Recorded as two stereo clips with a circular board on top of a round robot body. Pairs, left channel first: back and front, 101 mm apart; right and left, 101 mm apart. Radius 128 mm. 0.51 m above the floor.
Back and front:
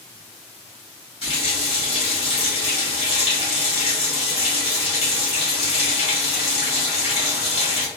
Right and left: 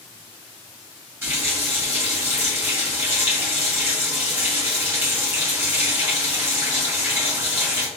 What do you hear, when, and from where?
1.2 s a running tap: 160° left, 1.9 m